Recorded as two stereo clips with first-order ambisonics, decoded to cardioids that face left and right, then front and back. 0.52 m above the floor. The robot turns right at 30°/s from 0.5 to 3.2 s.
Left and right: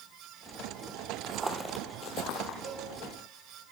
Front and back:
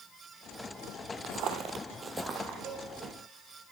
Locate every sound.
1.2 s footsteps: 150° right, 0.8 m; by 2.5 s 115° left, 1.0 m
2.6 s a cowbell: 120° right, 4 m; by 2.9 s 115° right, 4 m